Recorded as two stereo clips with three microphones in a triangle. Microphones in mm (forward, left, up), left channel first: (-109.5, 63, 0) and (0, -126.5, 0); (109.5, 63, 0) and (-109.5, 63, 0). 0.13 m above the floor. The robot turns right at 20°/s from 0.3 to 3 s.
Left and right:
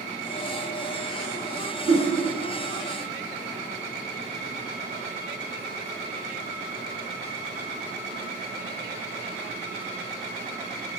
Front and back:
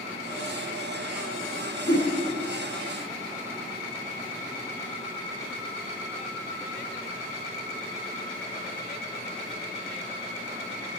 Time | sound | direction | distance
1.9 | a whoosh | 40° right | 5.5 m